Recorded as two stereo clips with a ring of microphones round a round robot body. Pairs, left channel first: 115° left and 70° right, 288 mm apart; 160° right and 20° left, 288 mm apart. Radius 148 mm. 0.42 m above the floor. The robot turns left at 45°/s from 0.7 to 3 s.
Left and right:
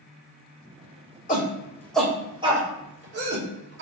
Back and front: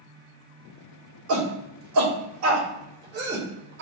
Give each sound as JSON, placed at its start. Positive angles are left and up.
{"t": 1.3, "sound": "a shout", "azimuth_deg": 55, "distance_m": 2.5}